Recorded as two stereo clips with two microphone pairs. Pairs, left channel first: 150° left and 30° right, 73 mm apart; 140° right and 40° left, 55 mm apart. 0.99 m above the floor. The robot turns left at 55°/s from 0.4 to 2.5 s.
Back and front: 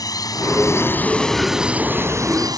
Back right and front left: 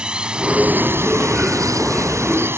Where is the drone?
115° left; by 2.6 s straight ahead.